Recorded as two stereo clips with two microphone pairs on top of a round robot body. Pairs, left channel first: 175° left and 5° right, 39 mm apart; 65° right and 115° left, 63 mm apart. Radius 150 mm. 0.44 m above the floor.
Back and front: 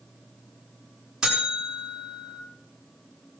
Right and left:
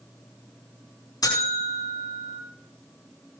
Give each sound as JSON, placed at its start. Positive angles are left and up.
{"t": 1.2, "sound": "a buzzer", "azimuth_deg": -80, "distance_m": 8.5}